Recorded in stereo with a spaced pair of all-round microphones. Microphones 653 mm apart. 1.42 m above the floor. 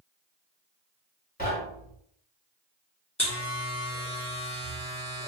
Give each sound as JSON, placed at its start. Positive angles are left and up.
{"t": 1.4, "sound": "knocking", "side_deg": 15, "distance_m": 1.5}
{"t": 3.2, "sound": "a buzzer", "side_deg": 10, "distance_m": 1.7}